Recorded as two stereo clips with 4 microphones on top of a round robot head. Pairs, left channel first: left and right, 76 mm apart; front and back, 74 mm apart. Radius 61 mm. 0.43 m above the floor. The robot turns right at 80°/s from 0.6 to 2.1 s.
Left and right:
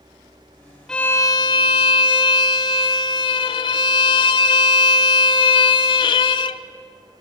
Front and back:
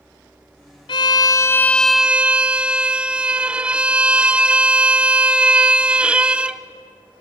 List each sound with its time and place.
0.9 s a violin: 5° left, 0.7 m; by 6.6 s 100° left, 0.7 m